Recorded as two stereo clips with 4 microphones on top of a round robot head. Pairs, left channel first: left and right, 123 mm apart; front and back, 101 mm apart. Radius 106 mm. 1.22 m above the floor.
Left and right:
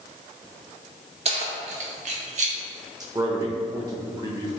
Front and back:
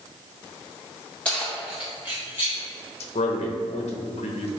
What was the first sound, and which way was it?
Keys jangling, 80° right.